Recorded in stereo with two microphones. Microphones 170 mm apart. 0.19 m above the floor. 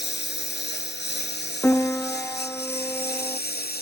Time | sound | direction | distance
0.0 | a lawn mower | 90° left | ?
1.6 | a piano | 10° left (ahead or behind) | ?